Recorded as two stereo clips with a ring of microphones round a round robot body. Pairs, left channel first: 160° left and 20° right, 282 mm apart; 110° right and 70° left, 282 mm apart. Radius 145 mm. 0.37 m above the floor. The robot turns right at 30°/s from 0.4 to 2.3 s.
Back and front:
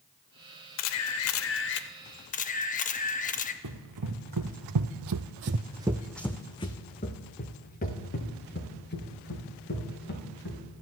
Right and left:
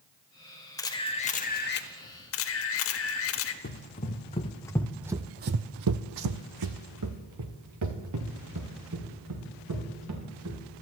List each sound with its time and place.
0.8 s a camera shutter: 170° left, 0.6 m; by 3.5 s 145° right, 0.6 m
3.6 s running footsteps: 50° right, 1.5 m; by 10.6 s 105° left, 4 m